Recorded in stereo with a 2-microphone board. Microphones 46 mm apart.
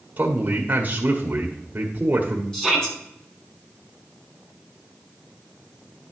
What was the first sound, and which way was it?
A man speaking, 45° right (ahead or behind).